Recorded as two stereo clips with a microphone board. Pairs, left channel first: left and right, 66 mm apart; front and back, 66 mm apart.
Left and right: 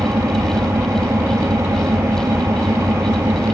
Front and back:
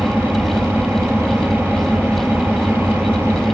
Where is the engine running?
125° right, 1.9 m.